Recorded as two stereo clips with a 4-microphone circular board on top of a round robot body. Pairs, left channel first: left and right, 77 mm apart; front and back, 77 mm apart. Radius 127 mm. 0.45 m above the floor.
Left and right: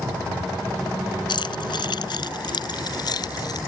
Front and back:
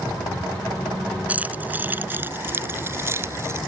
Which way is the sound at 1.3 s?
110° left.